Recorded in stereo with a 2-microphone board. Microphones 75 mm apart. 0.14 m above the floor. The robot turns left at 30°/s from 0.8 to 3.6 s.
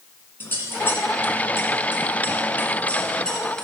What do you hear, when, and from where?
0.4 s scissors: 30° left (ahead or behind), 1.4 m; by 3.6 s 10° left (ahead or behind), 1.4 m